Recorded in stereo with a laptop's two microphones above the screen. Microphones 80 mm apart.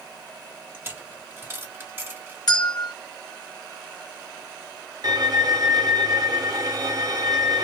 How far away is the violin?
About 1.3 m.